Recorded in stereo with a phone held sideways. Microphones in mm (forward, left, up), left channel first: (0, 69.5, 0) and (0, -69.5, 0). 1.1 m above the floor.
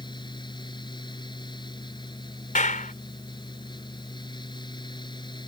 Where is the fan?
35° left (ahead or behind).